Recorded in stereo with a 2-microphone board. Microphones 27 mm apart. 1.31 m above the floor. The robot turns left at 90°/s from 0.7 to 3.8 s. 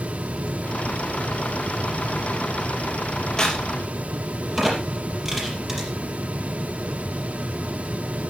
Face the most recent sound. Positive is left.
turn(degrees=-10)  # may be behind; listen again after turning